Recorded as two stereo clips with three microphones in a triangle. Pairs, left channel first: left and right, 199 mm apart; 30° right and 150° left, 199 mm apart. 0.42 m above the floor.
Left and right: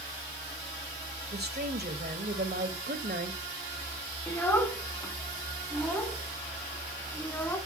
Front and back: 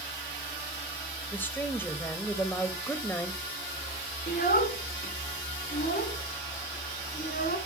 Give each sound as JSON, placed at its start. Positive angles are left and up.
{"t": 1.3, "sound": "a woman speaking", "azimuth_deg": -110, "distance_m": 1.6}
{"t": 4.3, "sound": "a child speaking", "azimuth_deg": 10, "distance_m": 2.5}